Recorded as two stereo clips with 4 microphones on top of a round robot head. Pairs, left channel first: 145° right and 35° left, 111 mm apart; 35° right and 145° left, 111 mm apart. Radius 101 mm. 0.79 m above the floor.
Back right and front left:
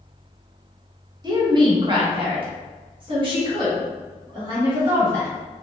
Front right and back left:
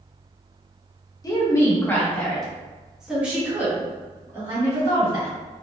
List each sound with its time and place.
1.2 s a woman speaking: 5° left, 1.3 m; by 5.3 s 85° left, 2.5 m